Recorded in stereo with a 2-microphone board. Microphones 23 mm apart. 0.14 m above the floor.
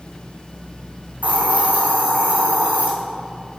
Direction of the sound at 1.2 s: 70° right (ahead or behind).